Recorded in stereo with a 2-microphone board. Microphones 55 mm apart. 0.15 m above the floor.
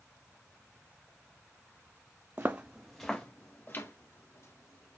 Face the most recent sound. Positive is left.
turn(degrees=55)  # may be behind; listen again after turning